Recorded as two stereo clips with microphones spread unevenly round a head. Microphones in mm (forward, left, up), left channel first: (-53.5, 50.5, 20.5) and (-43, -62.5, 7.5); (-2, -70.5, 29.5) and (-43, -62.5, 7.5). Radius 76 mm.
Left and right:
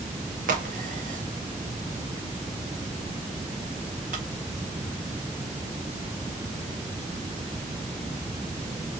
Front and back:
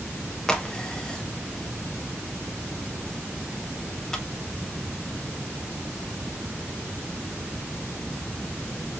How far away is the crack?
About 1.6 m.